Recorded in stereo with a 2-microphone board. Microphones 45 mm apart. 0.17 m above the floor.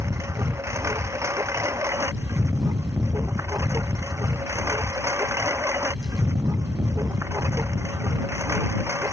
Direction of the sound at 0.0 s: 85° right.